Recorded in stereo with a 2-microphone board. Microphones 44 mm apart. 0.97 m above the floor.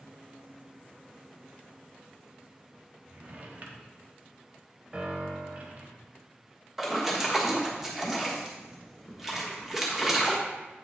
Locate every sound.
3.0 s a drawer: 40° right (ahead or behind), 1.0 m
4.9 s a piano: 25° right (ahead or behind), 1.2 m
6.8 s a splash: 5° right (ahead or behind), 1.4 m